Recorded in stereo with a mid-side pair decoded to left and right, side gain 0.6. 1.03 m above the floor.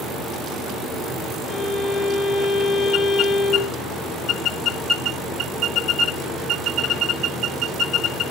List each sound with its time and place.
1.5 s a violin: 50° left, 2.5 m